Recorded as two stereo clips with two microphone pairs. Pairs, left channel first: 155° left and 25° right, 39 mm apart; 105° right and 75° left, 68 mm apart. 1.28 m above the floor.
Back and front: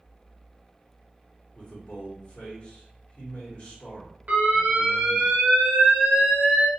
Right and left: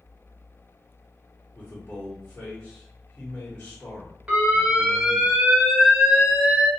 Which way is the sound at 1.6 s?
165° right.